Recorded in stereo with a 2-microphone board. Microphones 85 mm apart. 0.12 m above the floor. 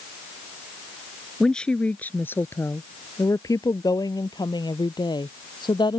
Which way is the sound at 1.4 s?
5° left (ahead or behind).